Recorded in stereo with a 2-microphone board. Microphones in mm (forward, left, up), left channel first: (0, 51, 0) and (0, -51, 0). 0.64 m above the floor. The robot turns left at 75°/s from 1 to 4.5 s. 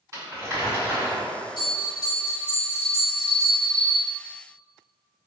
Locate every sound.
0.1 s crumpling: 30° right (ahead or behind), 1.9 m; by 1.2 s 20° right (ahead or behind), 1.9 m
1.6 s a bell: 95° left, 1.2 m; by 4.0 s 90° right, 1.2 m